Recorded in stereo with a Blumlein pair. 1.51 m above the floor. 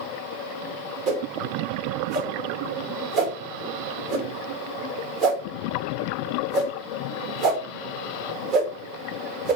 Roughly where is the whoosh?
Ahead right.